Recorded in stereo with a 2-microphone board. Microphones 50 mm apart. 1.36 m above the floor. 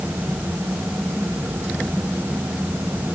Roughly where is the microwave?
I don't hear a microwave.